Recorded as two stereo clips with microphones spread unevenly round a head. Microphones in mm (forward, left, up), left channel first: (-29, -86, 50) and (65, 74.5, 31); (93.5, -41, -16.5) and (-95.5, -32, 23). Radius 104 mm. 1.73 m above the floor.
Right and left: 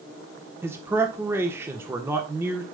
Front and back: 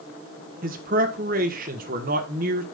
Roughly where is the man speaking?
Behind left.